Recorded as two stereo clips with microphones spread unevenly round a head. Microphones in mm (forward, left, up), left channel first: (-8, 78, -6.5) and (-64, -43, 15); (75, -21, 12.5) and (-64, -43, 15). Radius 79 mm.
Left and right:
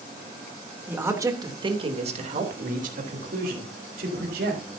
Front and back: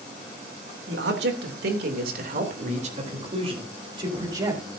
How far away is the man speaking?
About 3 m.